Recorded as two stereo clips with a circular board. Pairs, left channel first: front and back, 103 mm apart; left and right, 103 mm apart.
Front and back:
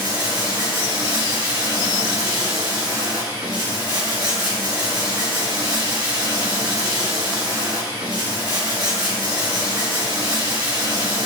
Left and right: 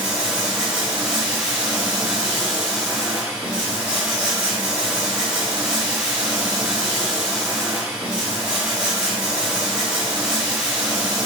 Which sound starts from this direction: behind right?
Running water, at 0.0 s.